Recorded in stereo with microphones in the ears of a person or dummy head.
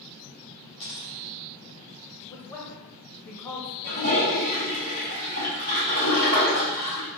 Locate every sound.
0.8 s a dropped coin: 20° left (ahead or behind), 1.1 m
2.3 s a man speaking: 15° left (ahead or behind), 0.7 m
3.8 s a toilet flushing: 60° right (ahead or behind), 1.8 m